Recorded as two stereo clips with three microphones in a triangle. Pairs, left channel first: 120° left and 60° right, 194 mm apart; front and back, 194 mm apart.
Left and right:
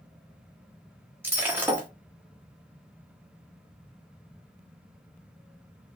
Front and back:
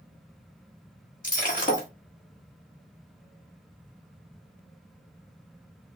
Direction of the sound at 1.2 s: 15° left.